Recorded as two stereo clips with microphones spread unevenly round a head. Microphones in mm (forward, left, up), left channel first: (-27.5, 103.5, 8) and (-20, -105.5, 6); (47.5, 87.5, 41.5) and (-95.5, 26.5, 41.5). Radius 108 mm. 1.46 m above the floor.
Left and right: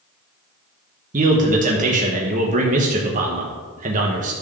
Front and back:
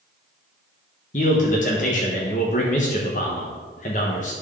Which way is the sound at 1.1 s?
30° right.